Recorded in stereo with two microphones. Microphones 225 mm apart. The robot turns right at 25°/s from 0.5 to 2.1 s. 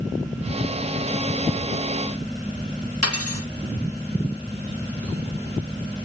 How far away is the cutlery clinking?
About 4 m.